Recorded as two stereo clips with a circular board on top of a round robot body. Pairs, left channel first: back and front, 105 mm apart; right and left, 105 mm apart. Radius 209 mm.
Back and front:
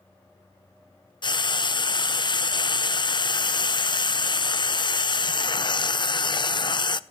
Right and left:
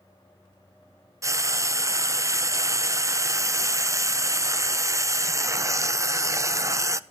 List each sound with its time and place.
1.2 s frying: 145° left, 0.9 m